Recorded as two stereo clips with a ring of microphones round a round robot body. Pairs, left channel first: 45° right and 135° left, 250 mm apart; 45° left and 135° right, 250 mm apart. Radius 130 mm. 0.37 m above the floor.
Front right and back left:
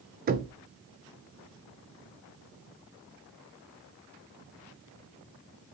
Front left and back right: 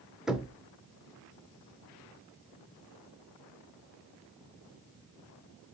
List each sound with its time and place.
0.3 s knocking: 140° left, 0.5 m